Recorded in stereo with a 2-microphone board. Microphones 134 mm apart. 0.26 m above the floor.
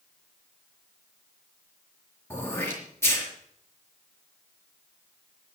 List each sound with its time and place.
2.3 s throat clearing: 20° left (ahead or behind), 4.5 m